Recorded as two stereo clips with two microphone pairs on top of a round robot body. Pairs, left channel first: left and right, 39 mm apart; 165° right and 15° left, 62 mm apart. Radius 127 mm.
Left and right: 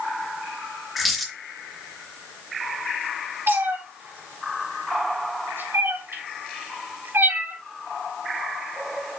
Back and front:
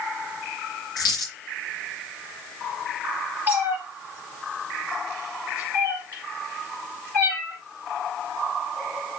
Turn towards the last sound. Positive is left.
turn(degrees=-105)